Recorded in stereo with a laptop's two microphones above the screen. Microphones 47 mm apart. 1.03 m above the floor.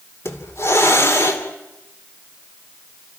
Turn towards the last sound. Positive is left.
turn(degrees=65)  # may be behind; listen again after turning